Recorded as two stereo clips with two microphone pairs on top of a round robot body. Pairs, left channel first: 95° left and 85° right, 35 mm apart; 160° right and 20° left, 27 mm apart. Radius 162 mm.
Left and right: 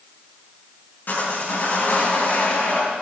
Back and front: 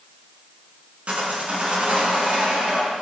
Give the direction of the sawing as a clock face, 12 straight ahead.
10 o'clock.